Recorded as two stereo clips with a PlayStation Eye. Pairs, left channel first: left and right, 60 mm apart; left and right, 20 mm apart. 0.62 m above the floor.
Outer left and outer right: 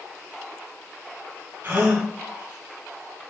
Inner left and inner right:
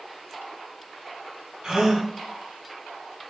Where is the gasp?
40° right (ahead or behind), 0.7 m.